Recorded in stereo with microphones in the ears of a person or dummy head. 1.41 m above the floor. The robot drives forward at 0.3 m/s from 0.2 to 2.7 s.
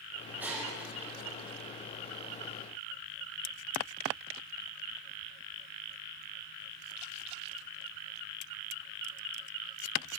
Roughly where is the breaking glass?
Centre.